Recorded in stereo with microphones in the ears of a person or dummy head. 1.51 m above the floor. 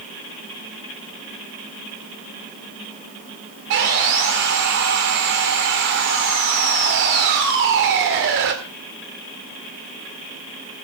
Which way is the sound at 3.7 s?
50° right (ahead or behind).